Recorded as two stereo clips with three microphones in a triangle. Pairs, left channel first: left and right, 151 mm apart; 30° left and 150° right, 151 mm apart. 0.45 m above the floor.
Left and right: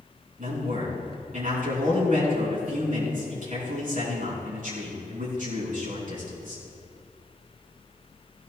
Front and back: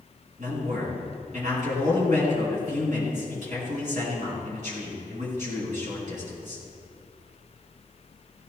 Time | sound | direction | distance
0.4 | a man speaking | 120° right | 5.5 m